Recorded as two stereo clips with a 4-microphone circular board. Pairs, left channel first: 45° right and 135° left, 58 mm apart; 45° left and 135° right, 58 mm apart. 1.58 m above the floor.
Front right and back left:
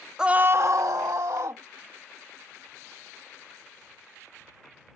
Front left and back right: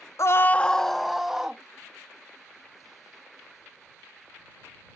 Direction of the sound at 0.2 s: 60° left.